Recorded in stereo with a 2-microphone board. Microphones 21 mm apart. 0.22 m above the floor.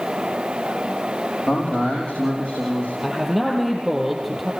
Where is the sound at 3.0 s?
5° right (ahead or behind), 7.5 m.